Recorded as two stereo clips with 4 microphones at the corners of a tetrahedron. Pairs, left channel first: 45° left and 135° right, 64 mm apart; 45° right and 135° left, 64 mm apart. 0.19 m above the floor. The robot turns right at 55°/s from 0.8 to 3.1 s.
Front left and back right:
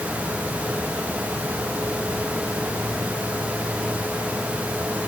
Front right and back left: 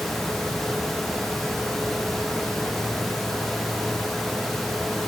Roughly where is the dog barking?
No dog barking in this recording.